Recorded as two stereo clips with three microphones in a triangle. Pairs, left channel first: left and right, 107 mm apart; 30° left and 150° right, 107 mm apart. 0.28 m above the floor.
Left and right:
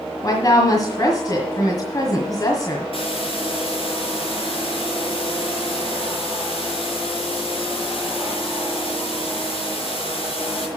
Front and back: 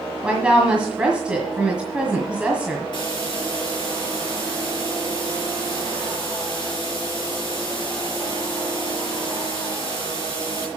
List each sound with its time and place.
0.2 s a woman speaking: 135° left, 1.7 m
2.9 s a hiss: 70° left, 4.5 m